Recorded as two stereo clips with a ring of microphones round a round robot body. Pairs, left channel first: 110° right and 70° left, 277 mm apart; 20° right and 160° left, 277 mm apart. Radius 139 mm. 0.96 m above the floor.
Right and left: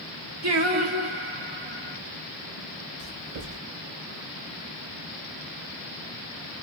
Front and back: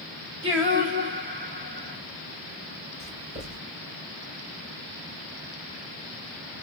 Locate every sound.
0.4 s singing: 105° left, 1.7 m
3.0 s writing: 110° left, 4 m